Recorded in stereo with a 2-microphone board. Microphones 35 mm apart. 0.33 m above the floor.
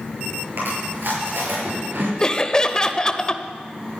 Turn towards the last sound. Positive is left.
turn(degrees=20)  # may be behind; listen again after turning